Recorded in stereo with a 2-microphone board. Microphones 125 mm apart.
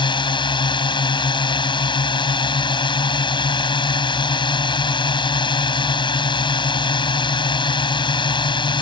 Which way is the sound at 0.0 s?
40° left (ahead or behind).